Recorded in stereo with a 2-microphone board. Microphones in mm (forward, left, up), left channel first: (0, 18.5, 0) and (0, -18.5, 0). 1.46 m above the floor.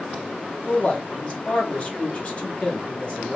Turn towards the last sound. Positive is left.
turn(degrees=30)  # may be behind; listen again after turning